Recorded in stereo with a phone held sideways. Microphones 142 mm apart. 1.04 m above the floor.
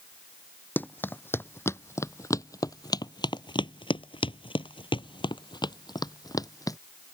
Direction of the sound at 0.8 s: 15° left (ahead or behind).